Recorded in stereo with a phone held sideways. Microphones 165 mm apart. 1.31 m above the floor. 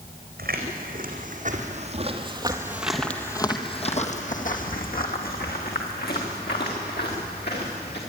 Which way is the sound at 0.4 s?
65° right (ahead or behind).